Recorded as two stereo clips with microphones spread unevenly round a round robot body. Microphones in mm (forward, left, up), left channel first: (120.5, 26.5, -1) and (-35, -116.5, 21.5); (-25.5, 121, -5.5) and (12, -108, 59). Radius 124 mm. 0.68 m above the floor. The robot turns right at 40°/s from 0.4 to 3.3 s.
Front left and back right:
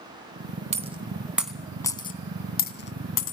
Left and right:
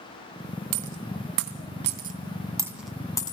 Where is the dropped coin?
80° right, 2.5 m; by 3.3 s 25° left, 2.5 m.